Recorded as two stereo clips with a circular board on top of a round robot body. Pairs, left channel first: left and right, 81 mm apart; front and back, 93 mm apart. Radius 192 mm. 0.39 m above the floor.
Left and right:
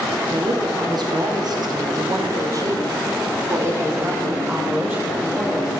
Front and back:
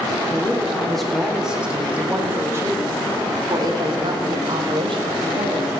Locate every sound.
0.3 s a woman speaking: 75° right, 1.9 m; by 5.7 s 160° right, 3 m